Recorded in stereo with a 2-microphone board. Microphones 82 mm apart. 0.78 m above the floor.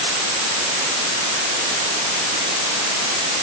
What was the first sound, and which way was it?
Only background noise.